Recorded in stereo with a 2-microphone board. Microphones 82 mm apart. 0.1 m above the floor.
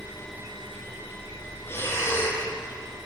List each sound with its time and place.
1.7 s breathing: 30° left (ahead or behind), 3 m